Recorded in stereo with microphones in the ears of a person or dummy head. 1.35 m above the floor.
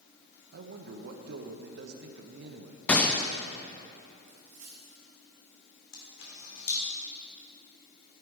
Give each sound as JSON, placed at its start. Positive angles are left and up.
{"t": 0.5, "sound": "a man speaking", "side_deg": -60, "distance_m": 0.9}
{"t": 2.9, "sound": "a gunshot", "side_deg": 10, "distance_m": 0.5}
{"t": 4.3, "sound": "a dropped coin", "side_deg": -35, "distance_m": 1.9}
{"t": 5.9, "sound": "a camera shutter", "side_deg": 65, "distance_m": 2.5}